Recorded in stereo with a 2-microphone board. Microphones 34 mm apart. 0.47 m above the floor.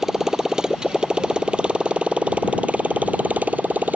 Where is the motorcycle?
15° right (ahead or behind); by 4.0 s 55° right (ahead or behind).